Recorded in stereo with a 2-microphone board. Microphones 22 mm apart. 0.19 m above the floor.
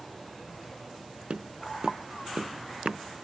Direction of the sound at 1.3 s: 50° right (ahead or behind).